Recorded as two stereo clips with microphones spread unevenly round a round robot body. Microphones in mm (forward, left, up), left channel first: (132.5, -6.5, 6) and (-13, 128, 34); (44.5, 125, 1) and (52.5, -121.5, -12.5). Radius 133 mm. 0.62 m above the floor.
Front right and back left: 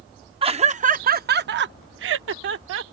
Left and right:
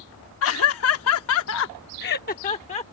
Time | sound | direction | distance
0.4 | laughter | 75° left | ?